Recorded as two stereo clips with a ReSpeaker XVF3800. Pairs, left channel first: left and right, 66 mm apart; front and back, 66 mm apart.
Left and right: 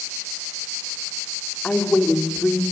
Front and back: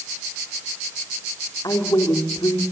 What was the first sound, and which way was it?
A woman speaking, 15° left.